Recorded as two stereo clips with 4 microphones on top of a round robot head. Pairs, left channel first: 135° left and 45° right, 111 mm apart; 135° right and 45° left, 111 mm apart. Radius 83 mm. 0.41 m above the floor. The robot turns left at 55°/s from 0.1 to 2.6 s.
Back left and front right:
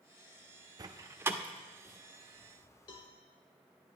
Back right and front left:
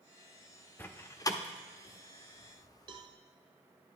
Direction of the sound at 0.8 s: 75° right.